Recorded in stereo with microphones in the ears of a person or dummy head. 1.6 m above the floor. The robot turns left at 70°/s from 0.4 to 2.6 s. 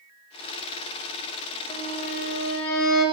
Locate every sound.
1.7 s a violin: 155° left, 1.8 m; by 3.0 s 90° left, 1.8 m